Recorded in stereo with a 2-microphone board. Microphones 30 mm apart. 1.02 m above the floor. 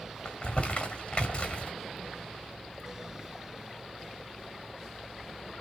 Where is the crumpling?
35° left (ahead or behind), 1.7 m.